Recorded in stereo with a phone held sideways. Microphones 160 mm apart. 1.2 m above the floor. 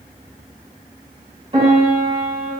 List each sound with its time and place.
1.5 s a piano: 35° right (ahead or behind), 1.7 m